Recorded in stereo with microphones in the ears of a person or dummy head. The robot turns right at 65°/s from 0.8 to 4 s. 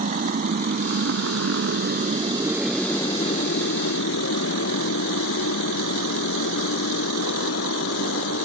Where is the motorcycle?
40° right (ahead or behind); by 8.4 s 85° left.